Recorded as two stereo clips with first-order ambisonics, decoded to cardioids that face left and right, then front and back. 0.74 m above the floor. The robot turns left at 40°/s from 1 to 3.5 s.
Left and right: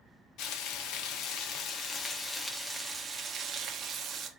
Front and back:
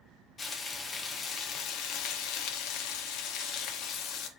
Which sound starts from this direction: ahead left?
Frying, at 0.4 s.